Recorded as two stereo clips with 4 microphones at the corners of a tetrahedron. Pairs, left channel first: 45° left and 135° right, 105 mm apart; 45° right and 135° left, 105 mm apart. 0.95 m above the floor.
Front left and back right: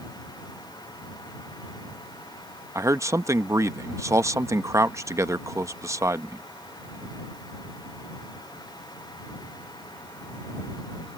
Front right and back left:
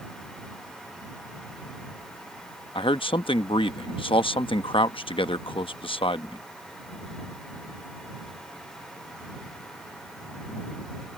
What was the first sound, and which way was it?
A man speaking, 75° right.